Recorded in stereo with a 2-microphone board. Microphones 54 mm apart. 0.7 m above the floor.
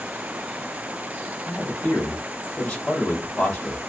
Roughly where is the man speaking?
Left.